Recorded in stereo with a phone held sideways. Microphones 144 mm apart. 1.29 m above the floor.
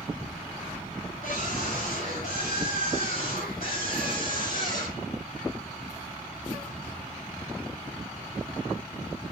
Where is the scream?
75° left (ahead or behind), 8 m.